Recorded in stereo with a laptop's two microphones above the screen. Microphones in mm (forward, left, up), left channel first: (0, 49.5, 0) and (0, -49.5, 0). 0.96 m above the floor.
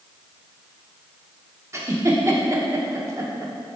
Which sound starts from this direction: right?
A giggle, at 1.7 s.